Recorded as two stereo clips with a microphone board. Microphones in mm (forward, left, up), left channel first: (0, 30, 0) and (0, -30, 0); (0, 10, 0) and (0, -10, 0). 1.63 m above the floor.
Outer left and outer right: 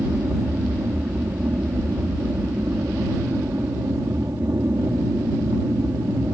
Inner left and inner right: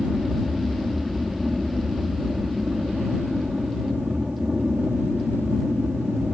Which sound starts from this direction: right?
An aircraft, at 0.0 s.